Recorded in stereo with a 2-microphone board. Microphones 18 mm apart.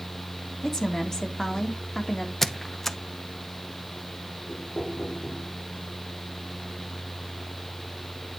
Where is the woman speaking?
35° left (ahead or behind), 3 m.